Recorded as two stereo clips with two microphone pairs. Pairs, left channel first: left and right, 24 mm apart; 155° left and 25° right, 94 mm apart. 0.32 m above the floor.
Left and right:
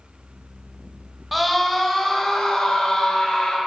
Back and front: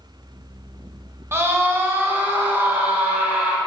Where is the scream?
5° right, 1.1 m; by 3.6 s 45° left, 2.0 m.